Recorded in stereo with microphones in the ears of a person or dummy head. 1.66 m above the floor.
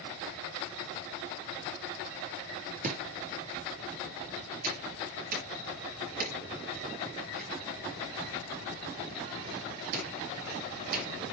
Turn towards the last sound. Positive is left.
turn(degrees=-50)  # may be behind; listen again after turning